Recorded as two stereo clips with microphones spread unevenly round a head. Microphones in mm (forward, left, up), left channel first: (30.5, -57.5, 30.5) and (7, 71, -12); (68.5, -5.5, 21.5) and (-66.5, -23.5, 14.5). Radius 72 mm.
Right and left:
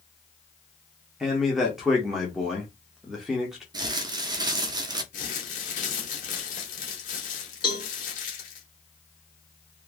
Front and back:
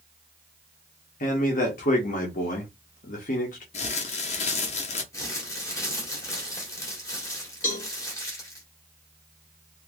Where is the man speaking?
25° left, 1.3 m.